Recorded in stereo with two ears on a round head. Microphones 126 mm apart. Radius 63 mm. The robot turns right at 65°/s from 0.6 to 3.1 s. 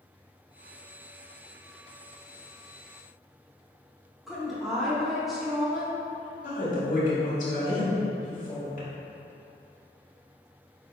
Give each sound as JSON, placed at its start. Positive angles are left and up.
{"t": 4.3, "sound": "a woman speaking", "side_deg": 0, "distance_m": 0.8}
{"t": 6.4, "sound": "a woman speaking", "side_deg": 60, "distance_m": 1.5}